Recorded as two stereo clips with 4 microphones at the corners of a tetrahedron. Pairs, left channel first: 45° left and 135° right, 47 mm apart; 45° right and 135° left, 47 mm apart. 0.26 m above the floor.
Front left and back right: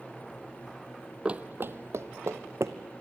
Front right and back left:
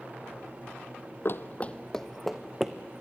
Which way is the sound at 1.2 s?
70° right.